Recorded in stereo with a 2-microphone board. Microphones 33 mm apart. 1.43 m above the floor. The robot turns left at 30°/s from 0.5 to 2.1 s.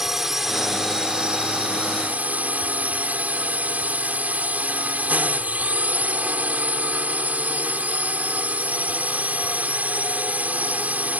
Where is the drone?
10° right; by 11.2 s 60° right.